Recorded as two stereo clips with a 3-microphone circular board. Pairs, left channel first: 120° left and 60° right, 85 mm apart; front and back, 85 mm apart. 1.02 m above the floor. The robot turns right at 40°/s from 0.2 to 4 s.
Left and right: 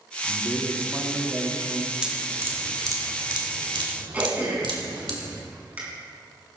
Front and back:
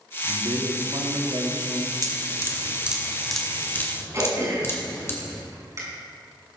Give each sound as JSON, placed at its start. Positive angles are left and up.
{"t": 0.2, "sound": "a man speaking", "azimuth_deg": 175, "distance_m": 2.5}
{"t": 2.0, "sound": "dripping", "azimuth_deg": -140, "distance_m": 2.0}
{"t": 4.1, "sound": "throat clearing", "azimuth_deg": -130, "distance_m": 5.5}